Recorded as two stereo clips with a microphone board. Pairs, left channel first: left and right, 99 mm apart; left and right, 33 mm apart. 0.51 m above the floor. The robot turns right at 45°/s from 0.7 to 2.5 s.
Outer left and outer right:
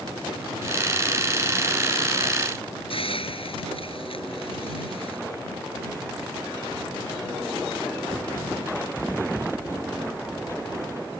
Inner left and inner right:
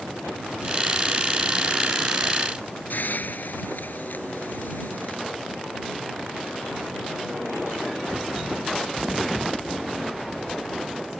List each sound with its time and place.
2.9 s a hiss: 65° left (ahead or behind)